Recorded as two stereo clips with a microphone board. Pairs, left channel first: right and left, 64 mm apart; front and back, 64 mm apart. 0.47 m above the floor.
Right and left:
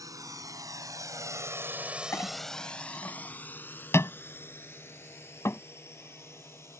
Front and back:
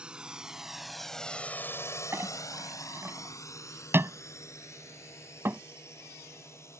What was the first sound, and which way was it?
A drone, 105° left.